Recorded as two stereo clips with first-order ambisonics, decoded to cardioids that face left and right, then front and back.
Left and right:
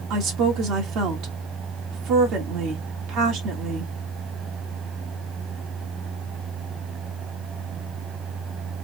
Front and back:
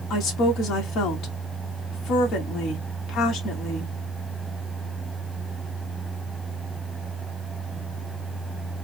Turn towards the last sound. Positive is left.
turn(degrees=-50)